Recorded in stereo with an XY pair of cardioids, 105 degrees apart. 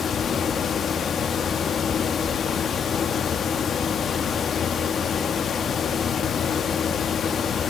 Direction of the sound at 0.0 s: 55° left.